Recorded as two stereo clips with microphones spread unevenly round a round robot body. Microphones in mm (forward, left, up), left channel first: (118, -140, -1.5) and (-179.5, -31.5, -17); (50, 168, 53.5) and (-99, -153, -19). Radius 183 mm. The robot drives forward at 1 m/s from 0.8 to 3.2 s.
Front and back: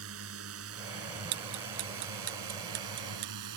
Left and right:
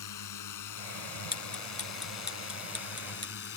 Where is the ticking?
135° left; by 3.5 s 145° left.